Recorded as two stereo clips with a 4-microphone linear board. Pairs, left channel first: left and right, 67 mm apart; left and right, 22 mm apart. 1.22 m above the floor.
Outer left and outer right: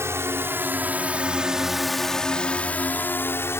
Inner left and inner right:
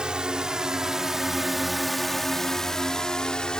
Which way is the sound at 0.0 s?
45° right (ahead or behind).